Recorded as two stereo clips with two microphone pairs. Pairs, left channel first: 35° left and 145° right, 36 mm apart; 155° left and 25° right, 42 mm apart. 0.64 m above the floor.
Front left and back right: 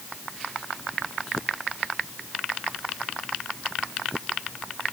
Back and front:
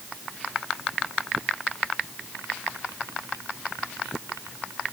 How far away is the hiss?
I don't hear a hiss.